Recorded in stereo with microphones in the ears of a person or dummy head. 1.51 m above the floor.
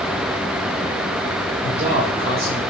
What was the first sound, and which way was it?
A man speaking, 35° right (ahead or behind).